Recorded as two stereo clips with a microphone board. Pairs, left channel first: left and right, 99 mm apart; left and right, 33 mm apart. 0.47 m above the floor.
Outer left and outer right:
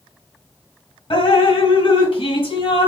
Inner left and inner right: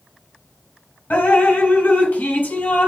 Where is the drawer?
No drawer in this recording.